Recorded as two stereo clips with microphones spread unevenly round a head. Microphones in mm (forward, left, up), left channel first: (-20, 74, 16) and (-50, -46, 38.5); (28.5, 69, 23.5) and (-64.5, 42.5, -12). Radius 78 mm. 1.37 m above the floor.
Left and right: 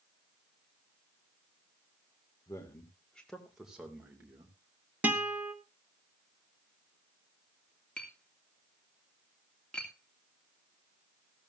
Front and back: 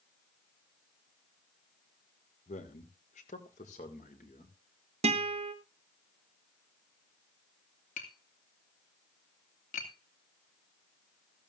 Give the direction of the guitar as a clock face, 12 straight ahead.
6 o'clock.